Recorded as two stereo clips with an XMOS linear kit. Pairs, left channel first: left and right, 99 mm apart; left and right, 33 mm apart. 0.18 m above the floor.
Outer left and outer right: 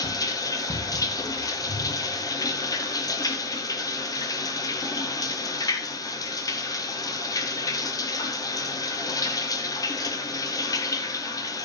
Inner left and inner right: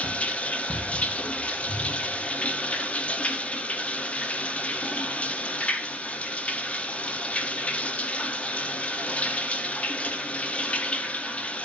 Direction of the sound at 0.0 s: 35° left (ahead or behind).